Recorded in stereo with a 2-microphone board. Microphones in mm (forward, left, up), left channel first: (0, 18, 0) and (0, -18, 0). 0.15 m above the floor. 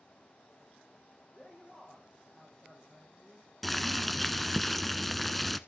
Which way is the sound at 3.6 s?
5° left (ahead or behind).